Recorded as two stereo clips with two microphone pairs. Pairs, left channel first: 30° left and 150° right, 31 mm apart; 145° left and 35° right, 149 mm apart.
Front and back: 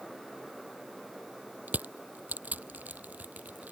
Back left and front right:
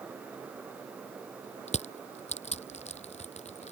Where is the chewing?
I don't hear chewing.